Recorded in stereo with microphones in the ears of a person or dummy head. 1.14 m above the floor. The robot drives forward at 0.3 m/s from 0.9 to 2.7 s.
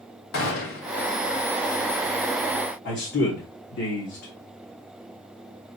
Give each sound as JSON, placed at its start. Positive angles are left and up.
{"t": 0.3, "sound": "a gunshot", "side_deg": 70, "distance_m": 1.3}
{"t": 2.9, "sound": "a man speaking", "side_deg": 55, "distance_m": 1.0}